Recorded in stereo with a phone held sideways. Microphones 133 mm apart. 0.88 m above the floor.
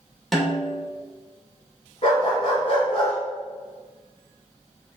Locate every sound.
0.3 s a snare drum: centre (ahead or behind), 2 m
2.0 s a dog barking: 45° left (ahead or behind), 3 m